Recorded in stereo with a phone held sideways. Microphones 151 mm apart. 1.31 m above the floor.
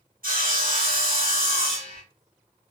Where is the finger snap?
I don't hear a finger snap.